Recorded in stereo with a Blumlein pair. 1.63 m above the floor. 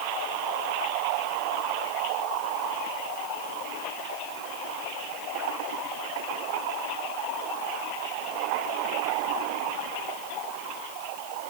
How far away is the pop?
I don't hear a pop.